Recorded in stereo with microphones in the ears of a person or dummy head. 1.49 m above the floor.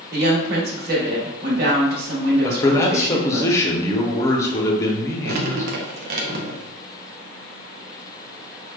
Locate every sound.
0.1 s a woman speaking: 65° right (ahead or behind), 1.2 m
2.4 s a man speaking: 15° left (ahead or behind), 0.7 m
5.2 s dripping: 60° right (ahead or behind), 0.6 m